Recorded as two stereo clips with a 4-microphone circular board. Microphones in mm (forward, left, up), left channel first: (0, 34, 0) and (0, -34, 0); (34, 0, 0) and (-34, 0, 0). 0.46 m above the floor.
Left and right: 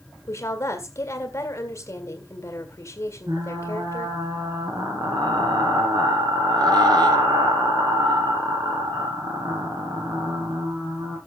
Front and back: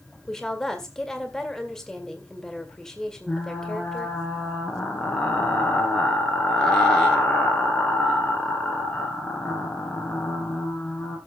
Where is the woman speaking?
80° left, 1.8 m.